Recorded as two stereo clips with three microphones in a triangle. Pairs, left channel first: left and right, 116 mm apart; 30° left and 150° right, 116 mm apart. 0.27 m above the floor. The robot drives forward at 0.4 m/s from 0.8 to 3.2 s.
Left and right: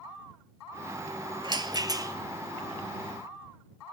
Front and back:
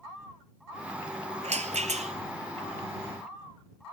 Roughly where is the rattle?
Behind right.